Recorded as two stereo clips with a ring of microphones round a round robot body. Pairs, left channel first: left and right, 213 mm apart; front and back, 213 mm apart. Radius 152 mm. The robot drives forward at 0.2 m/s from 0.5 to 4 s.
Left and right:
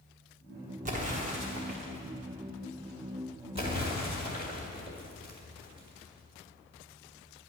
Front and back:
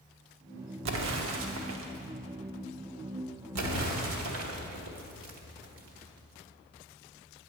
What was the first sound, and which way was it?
An explosion, 150° right.